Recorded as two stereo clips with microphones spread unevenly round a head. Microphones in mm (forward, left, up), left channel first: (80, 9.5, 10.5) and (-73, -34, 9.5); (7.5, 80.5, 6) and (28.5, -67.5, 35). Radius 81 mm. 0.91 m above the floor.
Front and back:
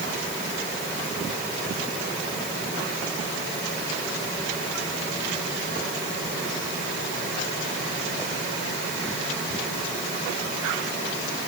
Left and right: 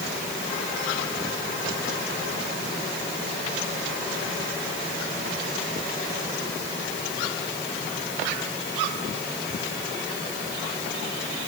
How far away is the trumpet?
No trumpet in this recording.